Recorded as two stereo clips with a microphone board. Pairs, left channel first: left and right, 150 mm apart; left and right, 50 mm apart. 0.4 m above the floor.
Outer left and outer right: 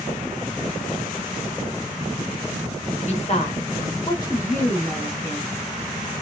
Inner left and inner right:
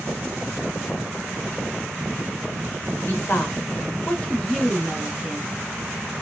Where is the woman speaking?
50° left (ahead or behind), 1.1 m; by 5.6 s centre (ahead or behind), 1.6 m.